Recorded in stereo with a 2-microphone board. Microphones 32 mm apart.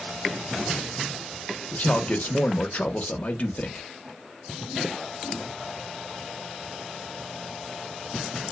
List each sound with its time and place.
1.7 s a man speaking: 50° left (ahead or behind), 0.6 m